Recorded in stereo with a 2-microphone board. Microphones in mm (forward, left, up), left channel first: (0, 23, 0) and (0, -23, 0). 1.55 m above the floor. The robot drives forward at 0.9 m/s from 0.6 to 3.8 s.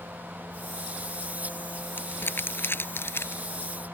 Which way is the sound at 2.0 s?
45° left (ahead or behind).